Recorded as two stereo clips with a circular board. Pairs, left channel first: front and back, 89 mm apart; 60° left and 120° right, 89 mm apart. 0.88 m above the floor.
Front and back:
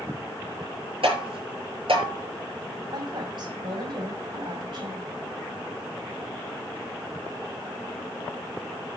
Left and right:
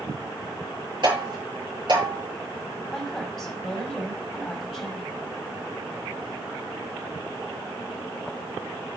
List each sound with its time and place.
1.0 s tapping: 160° right, 7 m
2.9 s a woman speaking: 145° left, 5.5 m